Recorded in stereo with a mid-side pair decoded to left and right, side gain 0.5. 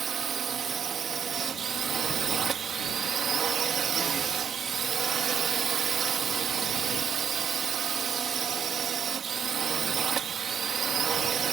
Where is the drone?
50° right.